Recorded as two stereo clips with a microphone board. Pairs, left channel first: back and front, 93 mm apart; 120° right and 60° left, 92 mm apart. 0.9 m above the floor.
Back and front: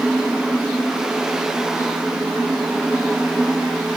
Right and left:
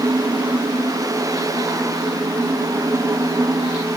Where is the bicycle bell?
No bicycle bell in this recording.